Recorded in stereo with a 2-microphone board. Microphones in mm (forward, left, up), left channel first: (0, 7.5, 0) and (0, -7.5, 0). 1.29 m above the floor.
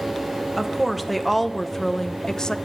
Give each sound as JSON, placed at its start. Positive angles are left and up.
{"t": 0.6, "sound": "a woman speaking", "side_deg": 0, "distance_m": 1.2}